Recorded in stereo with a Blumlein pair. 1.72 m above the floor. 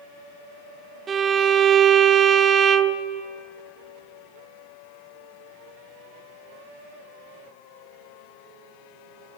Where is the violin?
20° right, 0.6 m.